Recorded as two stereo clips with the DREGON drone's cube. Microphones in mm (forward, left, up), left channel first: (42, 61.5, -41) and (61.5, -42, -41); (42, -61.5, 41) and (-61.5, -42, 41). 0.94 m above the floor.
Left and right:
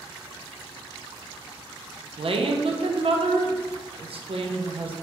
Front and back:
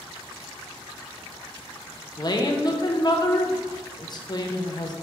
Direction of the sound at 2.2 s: 60° right.